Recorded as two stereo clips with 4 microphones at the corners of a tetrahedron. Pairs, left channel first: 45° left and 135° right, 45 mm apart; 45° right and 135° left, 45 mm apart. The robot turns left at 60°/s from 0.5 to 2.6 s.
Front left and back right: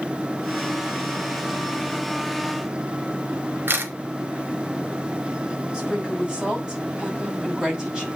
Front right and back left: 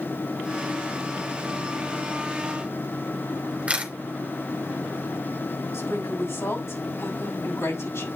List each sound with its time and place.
3.7 s a camera shutter: 165° right, 2.5 m
5.7 s a woman speaking: 65° right, 5.5 m